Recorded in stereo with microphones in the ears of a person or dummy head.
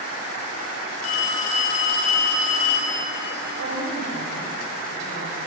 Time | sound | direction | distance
1.0 | a phone ringing | 50° left (ahead or behind) | 10 m
3.6 | a woman speaking | 70° right (ahead or behind) | 9 m